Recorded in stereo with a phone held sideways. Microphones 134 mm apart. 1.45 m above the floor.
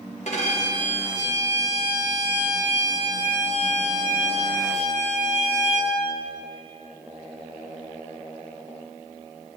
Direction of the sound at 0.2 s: 60° left (ahead or behind).